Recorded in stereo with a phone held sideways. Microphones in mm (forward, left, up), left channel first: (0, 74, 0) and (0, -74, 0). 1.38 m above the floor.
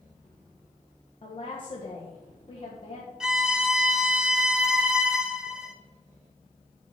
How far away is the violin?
About 0.7 m.